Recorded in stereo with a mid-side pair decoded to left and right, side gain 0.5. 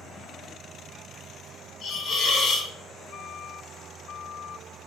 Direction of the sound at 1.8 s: 60° left.